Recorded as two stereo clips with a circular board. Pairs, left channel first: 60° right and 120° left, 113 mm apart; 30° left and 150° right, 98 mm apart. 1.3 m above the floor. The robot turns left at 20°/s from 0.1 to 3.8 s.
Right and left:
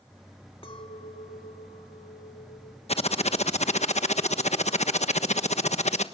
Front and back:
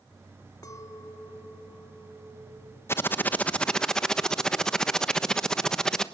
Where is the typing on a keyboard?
35° right, 1.2 m; by 6.0 s 55° right, 1.2 m.